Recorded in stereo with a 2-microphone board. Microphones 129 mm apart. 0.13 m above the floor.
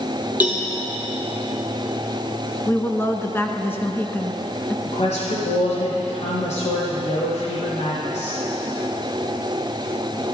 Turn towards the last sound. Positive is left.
turn(degrees=60)  # may be behind; listen again after turning